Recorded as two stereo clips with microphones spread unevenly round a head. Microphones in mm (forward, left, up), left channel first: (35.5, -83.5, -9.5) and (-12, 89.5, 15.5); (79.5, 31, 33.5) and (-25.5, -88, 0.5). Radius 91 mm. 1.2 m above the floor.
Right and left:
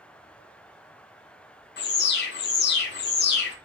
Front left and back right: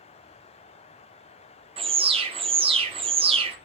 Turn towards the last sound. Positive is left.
turn(degrees=-85)